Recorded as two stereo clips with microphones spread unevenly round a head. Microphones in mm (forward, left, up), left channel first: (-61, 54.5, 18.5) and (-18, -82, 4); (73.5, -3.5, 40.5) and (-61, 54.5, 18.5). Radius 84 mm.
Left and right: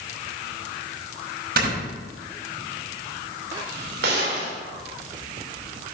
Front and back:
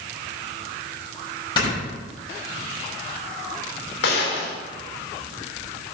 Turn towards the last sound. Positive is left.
turn(degrees=-45)